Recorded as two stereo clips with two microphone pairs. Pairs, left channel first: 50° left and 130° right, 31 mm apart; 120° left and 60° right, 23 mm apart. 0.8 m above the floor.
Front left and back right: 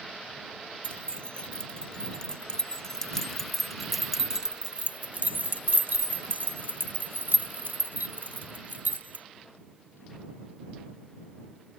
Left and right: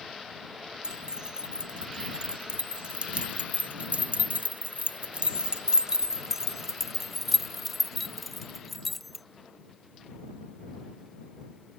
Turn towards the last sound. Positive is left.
turn(degrees=-150)